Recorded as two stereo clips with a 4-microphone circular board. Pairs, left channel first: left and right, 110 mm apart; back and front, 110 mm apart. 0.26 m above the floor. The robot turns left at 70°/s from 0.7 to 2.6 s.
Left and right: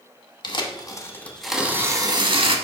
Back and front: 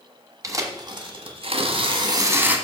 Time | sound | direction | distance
0.4 | tearing paper | 55° left | 1.1 m